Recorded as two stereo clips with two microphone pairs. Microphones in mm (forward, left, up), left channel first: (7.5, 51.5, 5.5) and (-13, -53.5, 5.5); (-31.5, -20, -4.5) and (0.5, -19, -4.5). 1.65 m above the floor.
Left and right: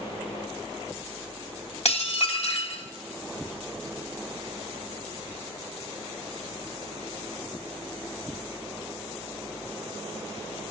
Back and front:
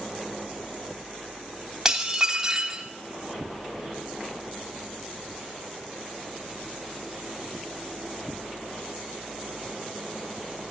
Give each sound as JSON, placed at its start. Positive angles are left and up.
{"t": 1.9, "sound": "dishes clattering", "azimuth_deg": 75, "distance_m": 2.5}